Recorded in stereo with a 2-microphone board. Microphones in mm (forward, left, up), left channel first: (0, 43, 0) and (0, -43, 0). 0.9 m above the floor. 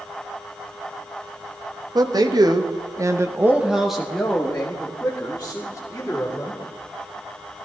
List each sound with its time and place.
1.9 s a man speaking: 50° right (ahead or behind), 1.6 m; by 6.6 s 25° left (ahead or behind), 3.5 m